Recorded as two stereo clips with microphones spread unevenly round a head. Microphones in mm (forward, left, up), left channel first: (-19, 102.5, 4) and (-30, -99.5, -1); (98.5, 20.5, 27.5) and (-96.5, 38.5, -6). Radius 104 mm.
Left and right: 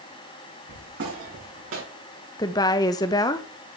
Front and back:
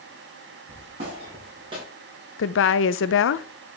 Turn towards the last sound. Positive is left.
turn(degrees=15)